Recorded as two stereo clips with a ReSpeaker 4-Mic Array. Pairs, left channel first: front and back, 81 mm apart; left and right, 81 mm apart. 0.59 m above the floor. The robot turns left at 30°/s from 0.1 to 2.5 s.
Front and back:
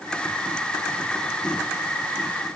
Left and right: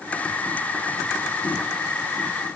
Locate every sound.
Only background noise.